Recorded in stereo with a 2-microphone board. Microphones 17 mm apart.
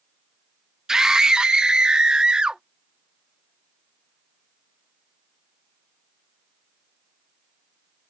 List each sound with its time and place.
0.9 s a scream: 40° right (ahead or behind); by 2.6 s 70° right (ahead or behind)